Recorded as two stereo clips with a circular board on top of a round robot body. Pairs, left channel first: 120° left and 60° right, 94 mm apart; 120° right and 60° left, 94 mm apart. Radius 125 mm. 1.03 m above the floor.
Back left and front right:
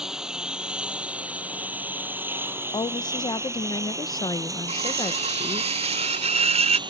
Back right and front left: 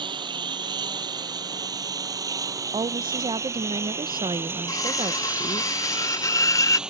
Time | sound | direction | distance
0.0 | a lawn mower | 20° left | ?
2.7 | a woman speaking | 85° left | ?
4.7 | cutlery clinking | 60° right | ?